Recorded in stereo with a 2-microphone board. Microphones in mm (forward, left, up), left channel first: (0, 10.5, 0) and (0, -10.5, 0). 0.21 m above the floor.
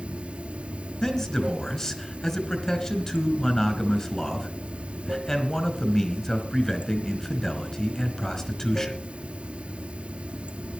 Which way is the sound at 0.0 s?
75° right (ahead or behind).